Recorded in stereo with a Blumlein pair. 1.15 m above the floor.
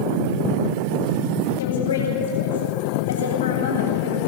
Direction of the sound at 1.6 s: 65° left.